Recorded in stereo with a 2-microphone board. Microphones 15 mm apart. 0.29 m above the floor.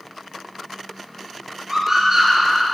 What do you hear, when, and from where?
1.7 s a scream: 20° right (ahead or behind), 6 m